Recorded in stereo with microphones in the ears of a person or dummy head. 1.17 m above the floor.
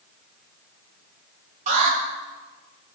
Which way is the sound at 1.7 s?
45° right (ahead or behind).